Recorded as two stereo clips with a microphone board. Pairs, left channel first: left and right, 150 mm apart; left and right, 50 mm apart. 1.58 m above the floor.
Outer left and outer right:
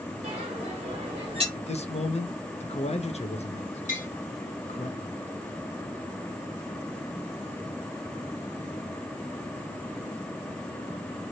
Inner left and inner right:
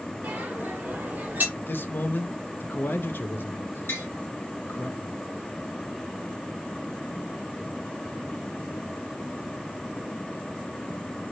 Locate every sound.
0.2 s a bell: 45° right (ahead or behind), 1.3 m
1.6 s a man speaking: 50° left (ahead or behind), 0.5 m
3.9 s tapping: 60° left (ahead or behind), 1.3 m